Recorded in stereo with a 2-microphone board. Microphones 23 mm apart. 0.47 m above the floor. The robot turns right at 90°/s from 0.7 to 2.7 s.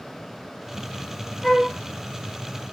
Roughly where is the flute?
Ahead.